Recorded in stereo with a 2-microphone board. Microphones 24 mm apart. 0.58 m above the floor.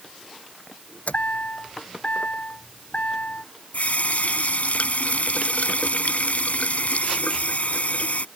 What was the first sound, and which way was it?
A chime, 70° left (ahead or behind).